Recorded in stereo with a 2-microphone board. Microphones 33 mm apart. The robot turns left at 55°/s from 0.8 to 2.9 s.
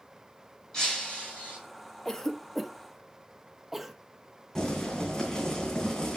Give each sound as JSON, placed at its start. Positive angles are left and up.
{"t": 0.7, "sound": "breaking glass", "azimuth_deg": 165, "distance_m": 4.0}
{"t": 2.0, "sound": "a cough", "side_deg": 20, "distance_m": 0.7}
{"t": 4.5, "sound": "boiling", "side_deg": 20, "distance_m": 2.5}